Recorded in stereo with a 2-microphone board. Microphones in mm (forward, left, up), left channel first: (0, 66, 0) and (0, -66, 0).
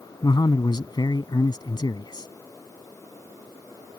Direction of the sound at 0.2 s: 35° left (ahead or behind).